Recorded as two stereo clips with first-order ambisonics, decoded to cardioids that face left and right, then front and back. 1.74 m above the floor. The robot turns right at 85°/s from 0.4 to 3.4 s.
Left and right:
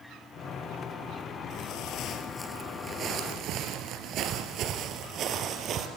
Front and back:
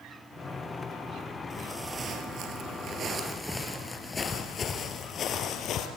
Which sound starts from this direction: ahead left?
Footsteps, at 1.5 s.